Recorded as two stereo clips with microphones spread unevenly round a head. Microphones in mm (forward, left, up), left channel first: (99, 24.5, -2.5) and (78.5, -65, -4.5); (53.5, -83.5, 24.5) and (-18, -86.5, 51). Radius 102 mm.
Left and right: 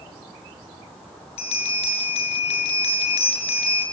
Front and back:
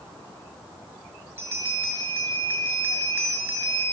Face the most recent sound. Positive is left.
turn(degrees=110)